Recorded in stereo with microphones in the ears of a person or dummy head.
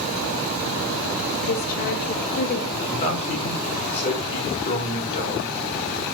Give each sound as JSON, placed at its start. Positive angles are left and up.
{"t": 1.4, "sound": "a woman speaking", "side_deg": 50, "distance_m": 2.0}
{"t": 2.9, "sound": "a man speaking", "side_deg": 35, "distance_m": 4.0}